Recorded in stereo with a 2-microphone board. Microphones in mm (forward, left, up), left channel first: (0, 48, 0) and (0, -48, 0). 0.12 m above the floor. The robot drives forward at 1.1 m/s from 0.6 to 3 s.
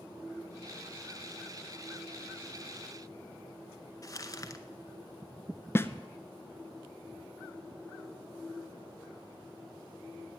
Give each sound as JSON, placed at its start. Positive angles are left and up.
{"t": 4.0, "sound": "crumpling", "side_deg": 40, "distance_m": 0.7}
{"t": 5.8, "sound": "a snare drum", "side_deg": 25, "distance_m": 0.5}